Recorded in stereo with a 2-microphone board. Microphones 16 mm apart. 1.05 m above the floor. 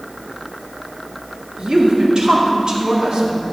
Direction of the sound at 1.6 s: 75° right (ahead or behind).